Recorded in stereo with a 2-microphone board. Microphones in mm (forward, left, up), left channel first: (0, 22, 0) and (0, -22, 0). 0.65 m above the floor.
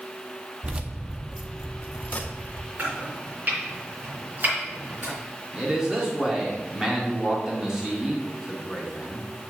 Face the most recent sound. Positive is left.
turn(degrees=-15)  # may be behind; listen again after turning